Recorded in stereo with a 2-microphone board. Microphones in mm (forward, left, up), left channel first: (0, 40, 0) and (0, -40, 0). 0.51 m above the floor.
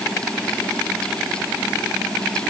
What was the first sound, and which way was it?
Only background noise.